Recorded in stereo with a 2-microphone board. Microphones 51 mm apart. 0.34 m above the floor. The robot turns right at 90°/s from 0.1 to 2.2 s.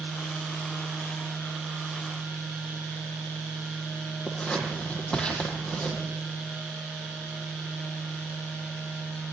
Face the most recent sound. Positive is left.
turn(degrees=20)  # may be behind; listen again after turning